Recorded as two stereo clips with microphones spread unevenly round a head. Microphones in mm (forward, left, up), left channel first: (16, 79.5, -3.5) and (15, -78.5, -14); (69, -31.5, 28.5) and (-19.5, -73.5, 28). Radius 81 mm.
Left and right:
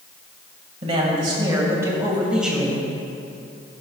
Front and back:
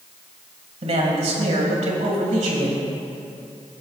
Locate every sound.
0.8 s a man speaking: 145° right, 1.9 m; by 2.9 s straight behind, 2.0 m